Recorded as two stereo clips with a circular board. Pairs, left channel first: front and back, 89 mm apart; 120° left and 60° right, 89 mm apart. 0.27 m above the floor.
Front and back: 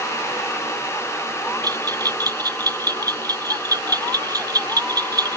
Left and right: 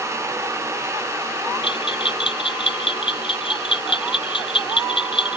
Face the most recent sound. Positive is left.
turn(degrees=135)